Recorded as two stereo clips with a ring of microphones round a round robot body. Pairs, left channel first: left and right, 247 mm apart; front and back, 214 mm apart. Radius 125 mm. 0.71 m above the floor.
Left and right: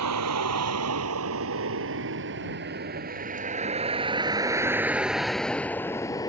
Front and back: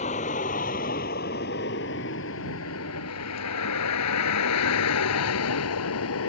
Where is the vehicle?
65° right; by 6.3 s 15° left.